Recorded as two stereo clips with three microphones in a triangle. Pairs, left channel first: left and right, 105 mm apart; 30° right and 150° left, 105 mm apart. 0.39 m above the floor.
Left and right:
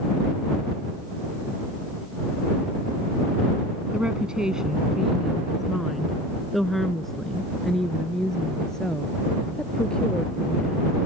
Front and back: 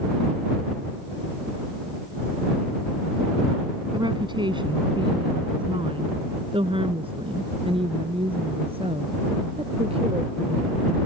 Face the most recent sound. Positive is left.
turn(degrees=170)